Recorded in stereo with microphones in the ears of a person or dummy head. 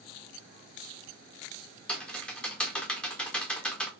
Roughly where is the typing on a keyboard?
Centre.